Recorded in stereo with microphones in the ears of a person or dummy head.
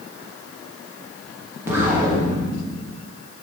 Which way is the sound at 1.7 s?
15° right (ahead or behind).